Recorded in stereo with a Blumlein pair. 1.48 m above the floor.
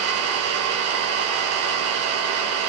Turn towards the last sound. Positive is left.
turn(degrees=-45)